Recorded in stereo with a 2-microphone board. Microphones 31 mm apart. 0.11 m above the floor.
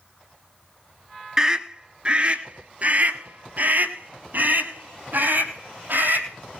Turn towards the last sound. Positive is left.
turn(degrees=-70)  # may be behind; listen again after turning